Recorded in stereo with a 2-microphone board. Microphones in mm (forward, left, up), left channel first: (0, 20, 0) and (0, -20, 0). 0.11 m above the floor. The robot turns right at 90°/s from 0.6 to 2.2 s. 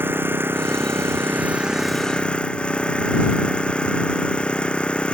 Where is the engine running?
115° right; by 5.1 s 25° left.